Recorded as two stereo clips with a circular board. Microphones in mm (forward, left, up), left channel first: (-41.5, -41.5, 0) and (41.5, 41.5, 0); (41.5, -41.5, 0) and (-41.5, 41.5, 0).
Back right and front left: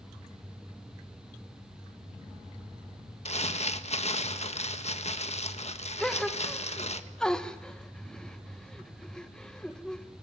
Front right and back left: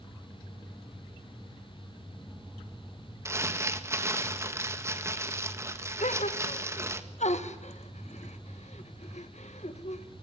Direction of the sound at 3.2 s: 160° right.